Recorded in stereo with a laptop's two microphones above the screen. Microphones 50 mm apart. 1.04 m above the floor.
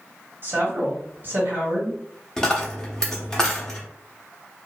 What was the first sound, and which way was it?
A woman speaking, 45° right (ahead or behind).